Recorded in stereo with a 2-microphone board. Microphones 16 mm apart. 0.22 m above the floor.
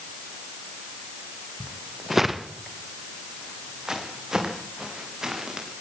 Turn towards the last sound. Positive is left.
turn(degrees=-50)  # may be behind; listen again after turning